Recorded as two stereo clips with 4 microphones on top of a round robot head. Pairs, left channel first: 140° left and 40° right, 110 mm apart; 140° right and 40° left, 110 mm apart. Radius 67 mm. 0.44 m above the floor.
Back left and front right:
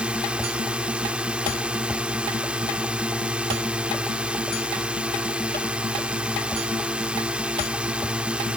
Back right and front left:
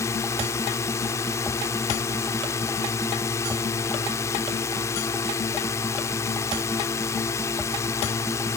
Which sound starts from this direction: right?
A drone, at 0.0 s.